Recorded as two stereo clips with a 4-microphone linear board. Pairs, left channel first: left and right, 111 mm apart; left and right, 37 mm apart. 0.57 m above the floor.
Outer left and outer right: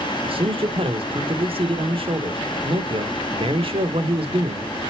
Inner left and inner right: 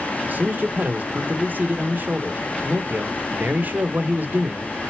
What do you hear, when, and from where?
0.2 s a man speaking: 55° right (ahead or behind), 1.3 m